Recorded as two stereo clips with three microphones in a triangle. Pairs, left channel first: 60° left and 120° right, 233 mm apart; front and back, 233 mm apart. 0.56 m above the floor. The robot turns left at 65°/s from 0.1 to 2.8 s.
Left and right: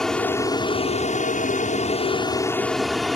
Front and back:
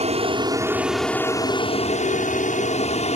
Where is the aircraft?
145° left; by 3.1 s 30° right.